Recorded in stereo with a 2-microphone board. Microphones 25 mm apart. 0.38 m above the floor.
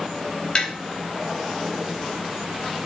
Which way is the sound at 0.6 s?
45° left (ahead or behind).